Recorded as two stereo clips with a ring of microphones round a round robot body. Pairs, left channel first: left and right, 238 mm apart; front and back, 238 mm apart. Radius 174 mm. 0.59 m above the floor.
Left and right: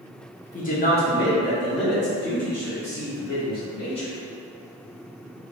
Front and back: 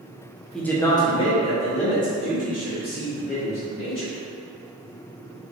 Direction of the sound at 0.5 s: 85° left.